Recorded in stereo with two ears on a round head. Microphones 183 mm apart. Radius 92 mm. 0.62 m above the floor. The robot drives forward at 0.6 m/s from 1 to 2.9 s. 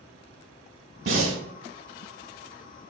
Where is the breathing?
50° right (ahead or behind), 1.1 m; by 1.4 s 40° right (ahead or behind), 1.2 m.